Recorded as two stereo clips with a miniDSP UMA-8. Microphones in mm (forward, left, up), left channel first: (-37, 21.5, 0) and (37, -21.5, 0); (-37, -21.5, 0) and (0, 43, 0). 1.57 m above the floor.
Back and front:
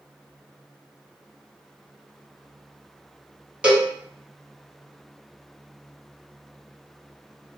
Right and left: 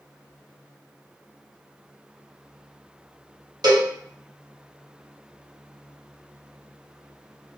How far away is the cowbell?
About 1.2 m.